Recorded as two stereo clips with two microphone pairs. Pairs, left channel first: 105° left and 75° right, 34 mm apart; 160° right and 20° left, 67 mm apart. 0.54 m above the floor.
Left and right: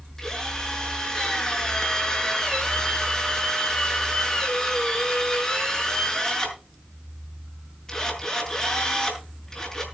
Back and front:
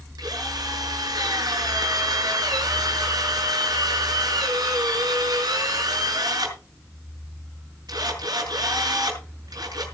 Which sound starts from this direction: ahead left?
A drill, at 0.2 s.